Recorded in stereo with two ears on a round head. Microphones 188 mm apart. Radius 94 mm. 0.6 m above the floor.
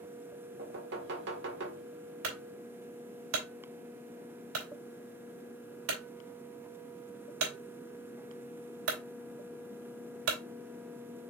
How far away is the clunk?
About 3 m.